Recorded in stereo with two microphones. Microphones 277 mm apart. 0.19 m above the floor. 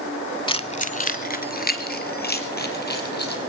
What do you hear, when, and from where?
0.5 s keys jangling: 15° left (ahead or behind), 0.7 m; by 3.4 s 35° left (ahead or behind), 4 m